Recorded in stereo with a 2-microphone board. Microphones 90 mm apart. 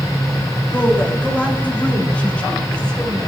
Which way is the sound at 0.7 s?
20° left (ahead or behind).